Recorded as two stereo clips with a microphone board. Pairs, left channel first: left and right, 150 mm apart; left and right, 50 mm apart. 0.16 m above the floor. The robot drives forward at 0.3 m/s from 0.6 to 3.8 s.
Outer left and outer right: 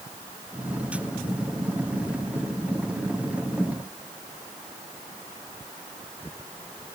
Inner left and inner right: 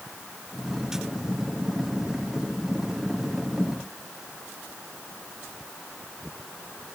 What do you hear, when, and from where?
Only background noise.